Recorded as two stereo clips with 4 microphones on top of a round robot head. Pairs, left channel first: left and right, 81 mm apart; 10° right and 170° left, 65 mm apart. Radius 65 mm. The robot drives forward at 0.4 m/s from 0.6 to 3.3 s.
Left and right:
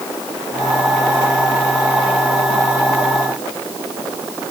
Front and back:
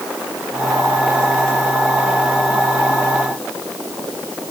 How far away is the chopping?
No chopping in this recording.